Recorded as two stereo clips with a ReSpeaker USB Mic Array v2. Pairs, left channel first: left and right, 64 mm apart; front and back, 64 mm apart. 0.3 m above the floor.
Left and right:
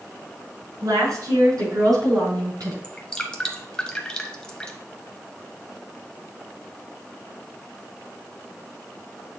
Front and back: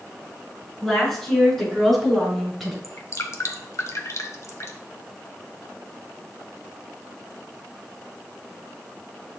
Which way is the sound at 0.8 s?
80° right.